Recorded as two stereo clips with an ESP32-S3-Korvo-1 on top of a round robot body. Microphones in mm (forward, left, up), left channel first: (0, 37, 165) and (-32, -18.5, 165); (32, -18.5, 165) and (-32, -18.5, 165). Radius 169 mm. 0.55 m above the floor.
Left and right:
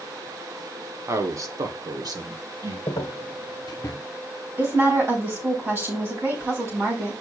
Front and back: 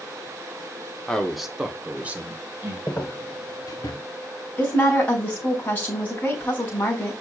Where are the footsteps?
70° left, 0.7 m; by 4.0 s 15° left, 1.1 m.